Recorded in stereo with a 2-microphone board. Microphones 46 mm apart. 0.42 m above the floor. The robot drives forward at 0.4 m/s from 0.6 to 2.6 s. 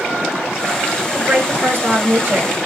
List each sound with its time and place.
1.1 s a woman speaking: 45° right (ahead or behind), 2.0 m; by 2.5 s 35° right (ahead or behind), 2.5 m